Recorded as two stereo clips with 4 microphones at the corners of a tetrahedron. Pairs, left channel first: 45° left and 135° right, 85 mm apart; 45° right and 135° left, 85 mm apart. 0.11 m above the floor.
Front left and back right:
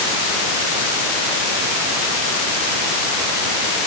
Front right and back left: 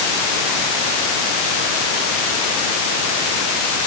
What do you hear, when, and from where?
Only background noise.